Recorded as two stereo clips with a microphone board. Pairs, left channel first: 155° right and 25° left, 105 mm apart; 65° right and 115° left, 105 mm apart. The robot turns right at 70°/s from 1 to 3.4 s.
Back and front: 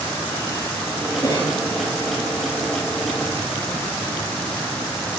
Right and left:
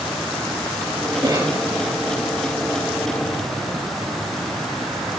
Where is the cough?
155° left, 3 m; by 1.6 s straight behind, 3 m.